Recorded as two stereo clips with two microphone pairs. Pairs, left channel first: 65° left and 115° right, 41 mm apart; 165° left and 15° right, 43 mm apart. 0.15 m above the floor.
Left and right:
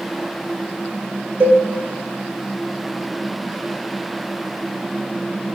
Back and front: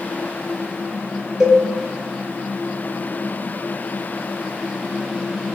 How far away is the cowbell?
About 0.8 m.